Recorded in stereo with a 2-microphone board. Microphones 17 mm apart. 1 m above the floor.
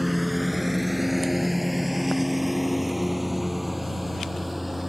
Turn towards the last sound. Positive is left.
turn(degrees=-10)  # may be behind; listen again after turning